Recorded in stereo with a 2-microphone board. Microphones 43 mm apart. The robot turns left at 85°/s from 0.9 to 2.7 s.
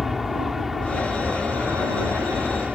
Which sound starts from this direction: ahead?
An aircraft, at 0.0 s.